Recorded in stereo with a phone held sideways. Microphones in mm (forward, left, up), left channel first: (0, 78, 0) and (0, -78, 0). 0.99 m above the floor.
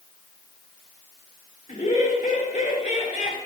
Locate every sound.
1.7 s laughter: 60° left (ahead or behind), 2.5 m; by 3.4 s 55° left (ahead or behind), 4 m